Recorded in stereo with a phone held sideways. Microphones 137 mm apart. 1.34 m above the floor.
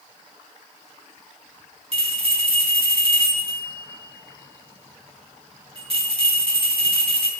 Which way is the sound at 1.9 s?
45° right (ahead or behind).